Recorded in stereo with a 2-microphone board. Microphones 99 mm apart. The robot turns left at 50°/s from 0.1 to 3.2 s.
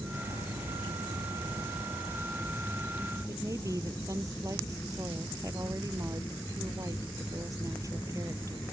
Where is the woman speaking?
35° right (ahead or behind).